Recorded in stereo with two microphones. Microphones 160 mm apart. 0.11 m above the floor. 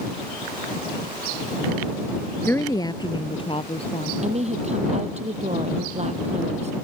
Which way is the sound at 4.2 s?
45° right (ahead or behind).